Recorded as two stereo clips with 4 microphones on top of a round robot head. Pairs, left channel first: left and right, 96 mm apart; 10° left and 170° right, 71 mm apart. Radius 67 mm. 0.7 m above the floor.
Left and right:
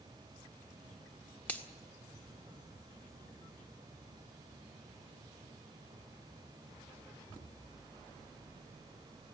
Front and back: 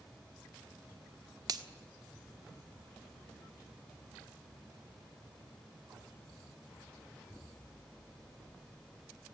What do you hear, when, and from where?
1.5 s a finger snap: 165° left, 1.7 m